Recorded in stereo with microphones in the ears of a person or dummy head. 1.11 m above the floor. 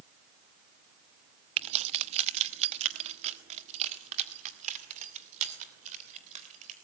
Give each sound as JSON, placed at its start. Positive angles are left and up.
{"t": 1.6, "sound": "keys jangling", "side_deg": -30, "distance_m": 0.7}